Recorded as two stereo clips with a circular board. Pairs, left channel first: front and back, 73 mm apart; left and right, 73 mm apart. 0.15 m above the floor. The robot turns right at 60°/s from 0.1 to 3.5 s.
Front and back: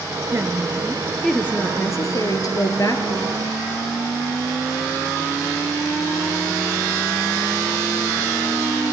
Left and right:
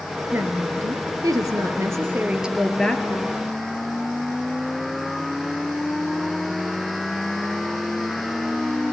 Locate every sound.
0.3 s a woman speaking: 140° right, 3 m; by 3.4 s 45° left, 3 m